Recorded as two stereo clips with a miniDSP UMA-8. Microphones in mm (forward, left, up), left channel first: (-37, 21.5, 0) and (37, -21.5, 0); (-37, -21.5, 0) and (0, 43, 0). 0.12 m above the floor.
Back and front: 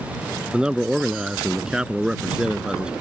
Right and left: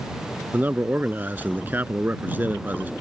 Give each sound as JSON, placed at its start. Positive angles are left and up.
{"t": 0.5, "sound": "a man speaking", "azimuth_deg": 40}